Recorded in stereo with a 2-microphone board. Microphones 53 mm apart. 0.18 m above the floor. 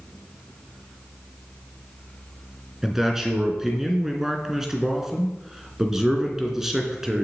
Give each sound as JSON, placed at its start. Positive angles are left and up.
{"t": 2.8, "sound": "a man speaking", "side_deg": -10, "distance_m": 2.5}